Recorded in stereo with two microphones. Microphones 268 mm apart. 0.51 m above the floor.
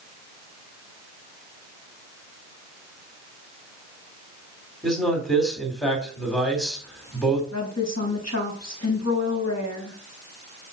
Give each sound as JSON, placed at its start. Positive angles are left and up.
{"t": 4.8, "sound": "a man speaking", "side_deg": 0, "distance_m": 3.5}
{"t": 7.5, "sound": "a woman speaking", "side_deg": 75, "distance_m": 3.5}